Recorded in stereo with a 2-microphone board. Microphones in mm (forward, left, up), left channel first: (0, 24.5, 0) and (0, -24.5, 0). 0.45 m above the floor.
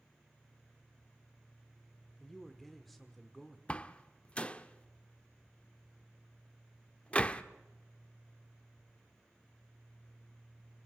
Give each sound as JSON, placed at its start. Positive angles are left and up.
{"t": 2.2, "sound": "a man speaking", "side_deg": 5, "distance_m": 1.2}
{"t": 3.7, "sound": "a door slam", "side_deg": 25, "distance_m": 0.6}